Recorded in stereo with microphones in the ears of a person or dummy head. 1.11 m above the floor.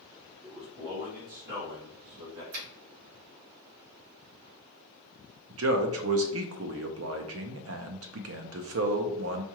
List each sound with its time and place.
0.4 s a man speaking: 5° right (ahead or behind), 1.1 m; by 2.4 s 70° right (ahead or behind), 1.8 m
2.5 s a finger snap: 80° right, 2.0 m
5.5 s a man speaking: 65° right (ahead or behind), 0.5 m